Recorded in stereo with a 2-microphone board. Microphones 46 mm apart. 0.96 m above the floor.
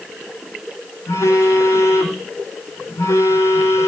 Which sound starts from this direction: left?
A phone buzzing, at 1.1 s.